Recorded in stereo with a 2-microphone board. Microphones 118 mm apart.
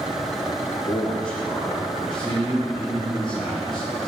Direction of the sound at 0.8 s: Centre (ahead or behind).